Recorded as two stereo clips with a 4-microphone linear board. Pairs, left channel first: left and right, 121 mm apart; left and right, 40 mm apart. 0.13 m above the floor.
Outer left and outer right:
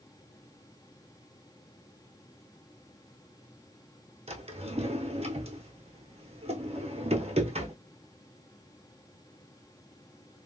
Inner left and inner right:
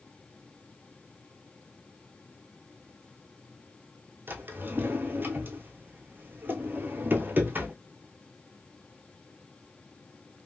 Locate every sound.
4.3 s a drawer: 60° right (ahead or behind), 0.9 m